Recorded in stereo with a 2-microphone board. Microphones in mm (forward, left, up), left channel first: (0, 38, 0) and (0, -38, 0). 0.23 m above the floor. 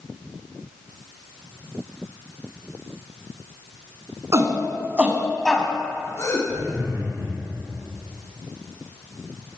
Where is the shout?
40° right (ahead or behind), 2 m; by 6.4 s 50° left (ahead or behind), 1.8 m.